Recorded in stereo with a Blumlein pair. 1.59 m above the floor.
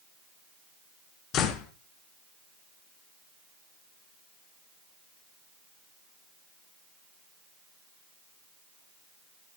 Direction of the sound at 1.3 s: 35° left.